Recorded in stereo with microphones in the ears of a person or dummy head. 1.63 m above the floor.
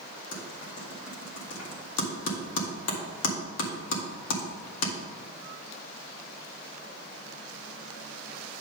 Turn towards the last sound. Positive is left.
turn(degrees=75)  # may be behind; listen again after turning